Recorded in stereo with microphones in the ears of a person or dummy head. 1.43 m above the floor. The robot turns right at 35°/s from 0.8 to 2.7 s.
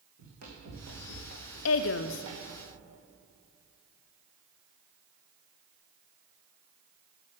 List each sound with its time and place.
0.2 s running footsteps: 45° right (ahead or behind), 3.5 m; by 2.6 s 15° right (ahead or behind), 3 m
1.6 s a woman speaking: 80° left, 0.5 m; by 2.2 s 60° left (ahead or behind), 0.5 m